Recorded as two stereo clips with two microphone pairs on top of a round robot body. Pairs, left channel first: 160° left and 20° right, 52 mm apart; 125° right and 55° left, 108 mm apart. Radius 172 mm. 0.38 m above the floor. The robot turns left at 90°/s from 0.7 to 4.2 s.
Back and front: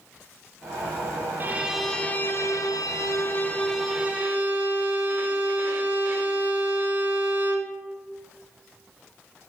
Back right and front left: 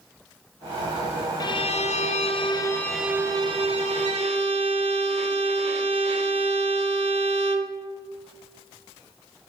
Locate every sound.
1.4 s a violin: 75° right, 0.7 m; by 7.8 s 35° left, 0.7 m